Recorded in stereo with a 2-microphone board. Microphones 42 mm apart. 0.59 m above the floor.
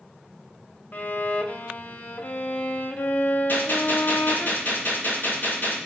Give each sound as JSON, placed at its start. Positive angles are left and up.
{"t": 0.9, "sound": "a violin", "side_deg": 45, "distance_m": 0.7}
{"t": 3.5, "sound": "a gunshot", "side_deg": 55, "distance_m": 6.0}